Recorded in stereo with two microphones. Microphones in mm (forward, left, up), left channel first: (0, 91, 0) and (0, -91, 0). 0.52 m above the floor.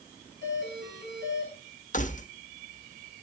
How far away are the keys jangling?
About 1.0 m.